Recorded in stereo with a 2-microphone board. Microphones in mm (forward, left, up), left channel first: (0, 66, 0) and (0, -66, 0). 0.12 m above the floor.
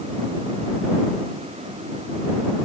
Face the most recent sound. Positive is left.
No sound to turn to.